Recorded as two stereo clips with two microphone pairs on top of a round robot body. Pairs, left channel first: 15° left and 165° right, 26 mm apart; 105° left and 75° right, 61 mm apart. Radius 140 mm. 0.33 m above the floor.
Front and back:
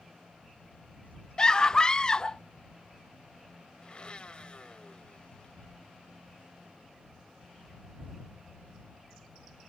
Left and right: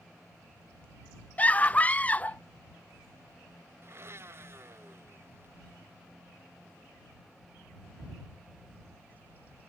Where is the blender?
35° right.